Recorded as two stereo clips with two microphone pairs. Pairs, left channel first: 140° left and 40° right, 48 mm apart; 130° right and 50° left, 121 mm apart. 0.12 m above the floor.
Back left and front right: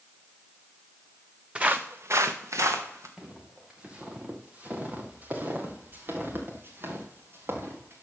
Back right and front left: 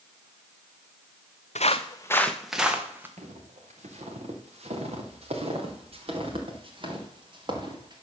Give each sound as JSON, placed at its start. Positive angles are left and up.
{"t": 1.6, "sound": "footsteps", "azimuth_deg": -110, "distance_m": 1.0}
{"t": 3.2, "sound": "footsteps", "azimuth_deg": 35, "distance_m": 3.0}